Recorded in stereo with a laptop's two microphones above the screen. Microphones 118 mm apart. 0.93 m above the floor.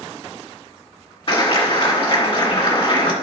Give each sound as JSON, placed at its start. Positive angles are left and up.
{"t": 1.3, "sound": "a clap", "side_deg": 50, "distance_m": 1.9}